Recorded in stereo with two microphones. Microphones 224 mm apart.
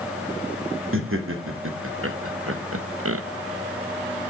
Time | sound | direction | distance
0.9 | laughter | 65° right (ahead or behind) | 2 m